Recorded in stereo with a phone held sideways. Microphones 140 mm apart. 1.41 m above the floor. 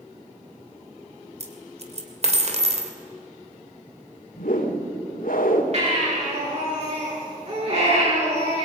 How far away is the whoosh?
About 2.5 m.